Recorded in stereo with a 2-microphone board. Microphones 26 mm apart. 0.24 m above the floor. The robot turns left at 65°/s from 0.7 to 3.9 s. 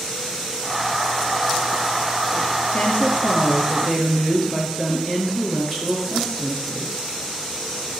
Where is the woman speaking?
90° left, 4.5 m; by 7.0 s 15° left, 4.5 m.